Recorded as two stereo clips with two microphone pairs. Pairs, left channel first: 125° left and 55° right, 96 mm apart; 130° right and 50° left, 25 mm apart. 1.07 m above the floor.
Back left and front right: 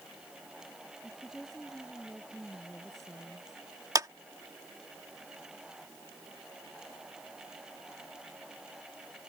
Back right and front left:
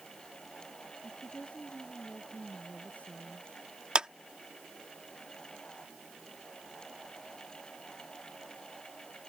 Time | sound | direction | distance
1.0 | a woman speaking | 145° right | ?
4.0 | a clap | 5° right | ?